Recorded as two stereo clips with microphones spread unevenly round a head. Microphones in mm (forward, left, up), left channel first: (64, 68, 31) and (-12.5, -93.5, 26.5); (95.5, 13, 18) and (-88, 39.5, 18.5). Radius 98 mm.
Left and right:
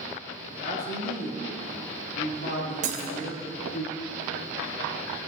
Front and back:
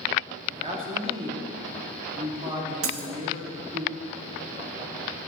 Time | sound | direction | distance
0.5 | a man speaking | 110° left | 2.5 m
2.8 | breaking glass | 170° right | 1.5 m